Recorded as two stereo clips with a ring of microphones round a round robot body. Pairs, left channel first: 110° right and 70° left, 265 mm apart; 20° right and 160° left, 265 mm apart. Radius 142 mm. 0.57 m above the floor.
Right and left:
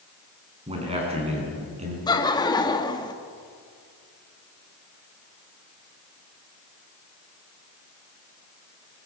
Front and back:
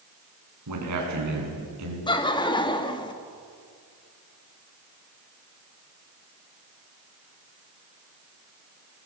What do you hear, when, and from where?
0.7 s a man speaking: 135° left, 6.5 m
2.1 s laughter: 65° right, 1.3 m